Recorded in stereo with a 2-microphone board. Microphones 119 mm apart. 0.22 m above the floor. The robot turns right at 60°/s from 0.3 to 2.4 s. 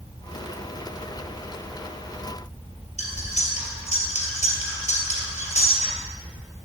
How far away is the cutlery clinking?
About 3 m.